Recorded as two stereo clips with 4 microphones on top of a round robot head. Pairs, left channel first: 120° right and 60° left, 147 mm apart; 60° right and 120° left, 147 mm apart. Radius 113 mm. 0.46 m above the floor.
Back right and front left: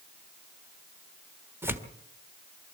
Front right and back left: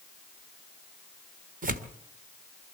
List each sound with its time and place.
1.6 s tearing paper: 130° left, 1.7 m